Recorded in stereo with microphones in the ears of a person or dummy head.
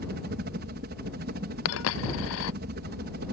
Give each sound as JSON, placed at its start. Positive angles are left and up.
{"t": 0.0, "sound": "a helicopter", "side_deg": -45}
{"t": 1.6, "sound": "a dropped coin", "side_deg": 75}